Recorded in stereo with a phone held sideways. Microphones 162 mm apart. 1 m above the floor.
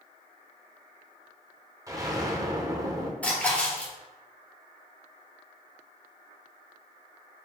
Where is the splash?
10° left (ahead or behind), 2.5 m.